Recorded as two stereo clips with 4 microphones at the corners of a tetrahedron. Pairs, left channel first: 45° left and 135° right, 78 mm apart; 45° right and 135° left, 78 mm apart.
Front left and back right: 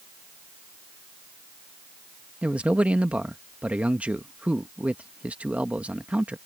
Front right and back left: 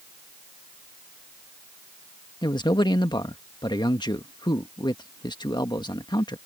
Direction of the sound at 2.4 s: 60° right.